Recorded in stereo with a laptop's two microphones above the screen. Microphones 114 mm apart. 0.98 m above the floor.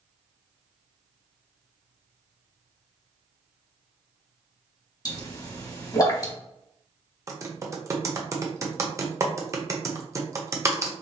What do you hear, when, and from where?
5.0 s a pop: 35° left (ahead or behind), 1.4 m
7.3 s typing on a keyboard: 30° right (ahead or behind), 0.5 m